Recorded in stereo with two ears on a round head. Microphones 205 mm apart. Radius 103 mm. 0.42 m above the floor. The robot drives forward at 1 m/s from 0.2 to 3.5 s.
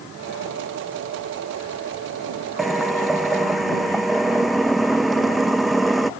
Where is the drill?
Centre (ahead or behind).